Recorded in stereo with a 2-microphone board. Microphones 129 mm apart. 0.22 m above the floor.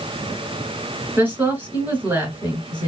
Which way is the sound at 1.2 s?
15° right (ahead or behind).